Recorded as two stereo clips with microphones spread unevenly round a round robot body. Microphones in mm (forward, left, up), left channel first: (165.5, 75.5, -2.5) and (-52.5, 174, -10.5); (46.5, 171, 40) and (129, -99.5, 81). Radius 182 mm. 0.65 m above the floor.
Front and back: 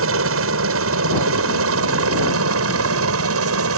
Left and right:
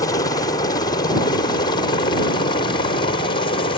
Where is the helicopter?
Straight behind; by 3.8 s 175° left.